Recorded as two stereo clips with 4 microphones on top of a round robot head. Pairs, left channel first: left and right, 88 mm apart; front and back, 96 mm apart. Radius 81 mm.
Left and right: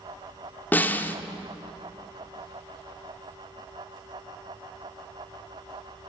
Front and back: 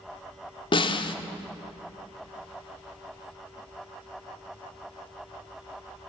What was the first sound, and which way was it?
A snare drum, 20° left.